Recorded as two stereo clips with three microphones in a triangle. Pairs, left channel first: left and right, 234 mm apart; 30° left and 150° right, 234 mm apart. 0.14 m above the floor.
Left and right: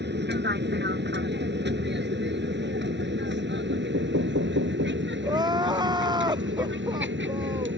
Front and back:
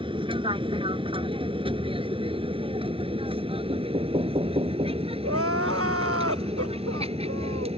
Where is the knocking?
90° right.